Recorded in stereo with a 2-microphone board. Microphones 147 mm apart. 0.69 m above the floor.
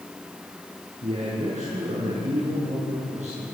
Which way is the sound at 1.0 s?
55° right (ahead or behind).